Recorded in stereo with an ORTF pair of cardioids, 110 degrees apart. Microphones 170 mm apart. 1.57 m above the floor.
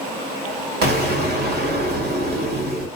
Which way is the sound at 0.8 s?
65° right.